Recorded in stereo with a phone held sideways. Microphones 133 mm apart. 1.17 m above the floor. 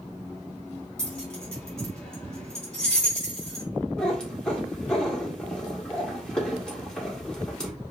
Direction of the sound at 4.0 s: 5° left (ahead or behind).